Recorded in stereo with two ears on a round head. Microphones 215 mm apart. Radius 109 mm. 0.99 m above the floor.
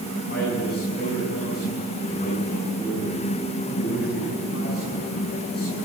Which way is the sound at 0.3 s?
40° left (ahead or behind).